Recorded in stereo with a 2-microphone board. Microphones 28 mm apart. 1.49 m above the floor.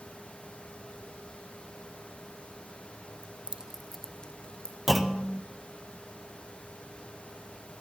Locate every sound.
3.2 s keys jangling: 45° right (ahead or behind), 0.9 m; by 4.8 s 35° left (ahead or behind), 1.6 m
4.9 s a clunk: 10° right (ahead or behind), 0.9 m